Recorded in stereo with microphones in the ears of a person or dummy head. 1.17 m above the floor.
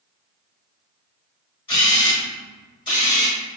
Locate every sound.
1.7 s a camera shutter: 20° left (ahead or behind), 1.5 m